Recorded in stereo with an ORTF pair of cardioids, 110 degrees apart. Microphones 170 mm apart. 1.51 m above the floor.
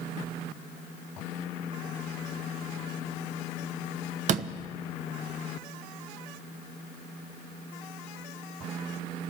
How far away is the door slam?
About 1.0 m.